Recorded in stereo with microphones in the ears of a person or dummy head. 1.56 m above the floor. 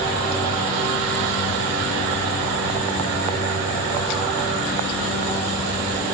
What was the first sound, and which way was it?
Only background noise.